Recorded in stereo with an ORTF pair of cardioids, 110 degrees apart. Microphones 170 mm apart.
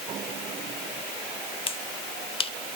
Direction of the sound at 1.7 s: 30° left.